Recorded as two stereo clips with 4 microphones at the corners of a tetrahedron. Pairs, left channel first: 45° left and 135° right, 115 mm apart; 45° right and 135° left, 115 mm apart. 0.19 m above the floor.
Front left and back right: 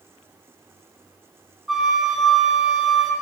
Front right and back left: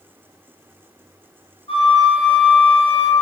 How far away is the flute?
About 1.7 m.